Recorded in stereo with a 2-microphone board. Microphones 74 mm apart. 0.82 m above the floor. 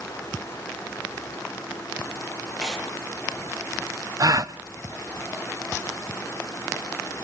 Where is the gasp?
50° right (ahead or behind), 0.7 m.